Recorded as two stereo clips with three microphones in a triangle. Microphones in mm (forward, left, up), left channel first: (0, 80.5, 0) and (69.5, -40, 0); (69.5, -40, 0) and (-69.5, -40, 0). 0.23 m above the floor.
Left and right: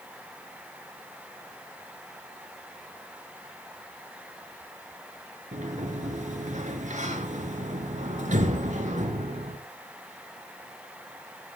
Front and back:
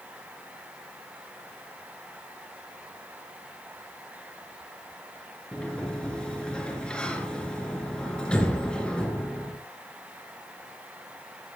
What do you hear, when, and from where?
5.5 s a sliding door: 80° right, 3 m